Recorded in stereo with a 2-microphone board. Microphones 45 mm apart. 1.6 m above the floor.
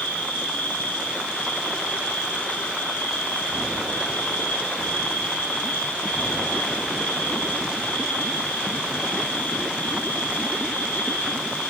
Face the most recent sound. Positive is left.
turn(degrees=75)  # may be behind; listen again after turning